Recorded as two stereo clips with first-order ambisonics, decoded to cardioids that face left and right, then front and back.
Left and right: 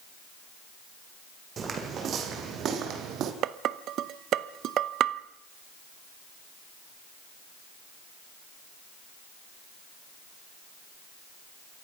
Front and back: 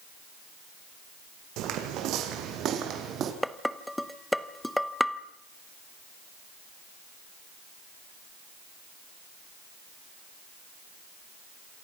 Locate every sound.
1.6 s footsteps: 150° right, 3.5 m; by 3.3 s 130° right, 3 m
3.4 s dishes clattering: 90° right, 0.8 m